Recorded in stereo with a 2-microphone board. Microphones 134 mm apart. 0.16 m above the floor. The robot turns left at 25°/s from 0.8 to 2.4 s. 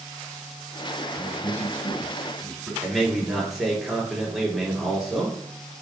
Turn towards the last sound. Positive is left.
turn(degrees=0)  # may be behind; listen again after turning